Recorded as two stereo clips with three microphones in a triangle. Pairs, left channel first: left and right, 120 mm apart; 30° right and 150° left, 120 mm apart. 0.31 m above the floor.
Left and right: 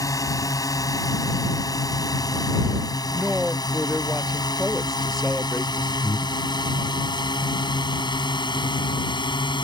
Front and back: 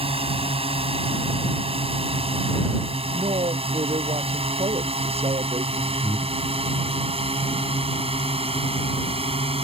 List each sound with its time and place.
0.0 s a drone: 145° left; by 9.6 s 130° left
3.1 s a woman speaking: straight behind
6.0 s breathing: 25° left